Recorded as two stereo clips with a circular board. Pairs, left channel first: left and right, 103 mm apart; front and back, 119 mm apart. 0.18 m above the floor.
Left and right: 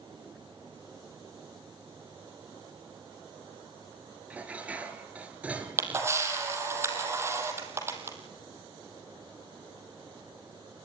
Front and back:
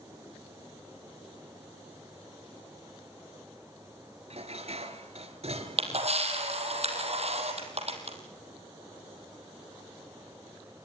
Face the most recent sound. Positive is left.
turn(degrees=-155)